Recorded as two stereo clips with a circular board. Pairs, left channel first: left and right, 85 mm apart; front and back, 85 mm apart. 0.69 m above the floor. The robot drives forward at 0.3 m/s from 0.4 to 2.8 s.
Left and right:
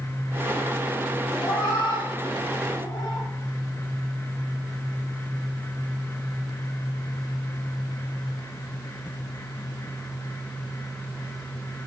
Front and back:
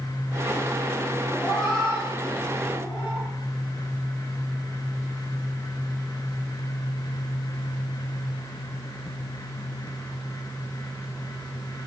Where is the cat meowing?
90° left, 1.7 m; by 3.3 s 105° left, 1.7 m.